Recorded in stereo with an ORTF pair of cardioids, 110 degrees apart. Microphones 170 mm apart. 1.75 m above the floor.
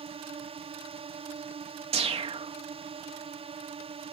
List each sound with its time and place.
0.0 s a drone: 35° right
1.9 s a whoosh: 35° right